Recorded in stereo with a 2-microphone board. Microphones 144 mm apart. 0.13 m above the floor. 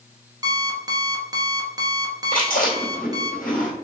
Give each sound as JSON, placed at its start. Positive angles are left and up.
{"t": 0.4, "sound": "an alarm clock", "side_deg": -25, "distance_m": 1.0}
{"t": 2.3, "sound": "chewing", "side_deg": 75, "distance_m": 2.5}